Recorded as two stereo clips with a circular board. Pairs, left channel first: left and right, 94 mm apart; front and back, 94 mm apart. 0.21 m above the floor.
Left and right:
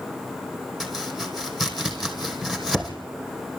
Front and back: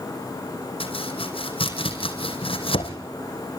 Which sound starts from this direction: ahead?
Chopping, at 0.8 s.